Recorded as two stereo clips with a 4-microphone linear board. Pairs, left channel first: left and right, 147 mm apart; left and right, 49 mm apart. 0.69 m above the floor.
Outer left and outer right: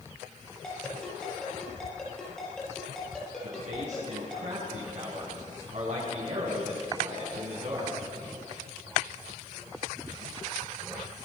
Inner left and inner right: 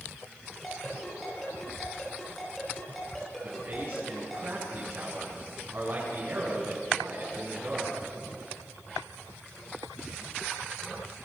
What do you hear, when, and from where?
0.6 s a ringtone: 5° left (ahead or behind), 9 m
3.4 s a man speaking: 55° right (ahead or behind), 7.5 m